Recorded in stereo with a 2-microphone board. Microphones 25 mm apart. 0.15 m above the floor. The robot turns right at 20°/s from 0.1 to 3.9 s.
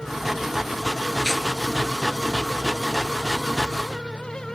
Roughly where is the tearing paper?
Left.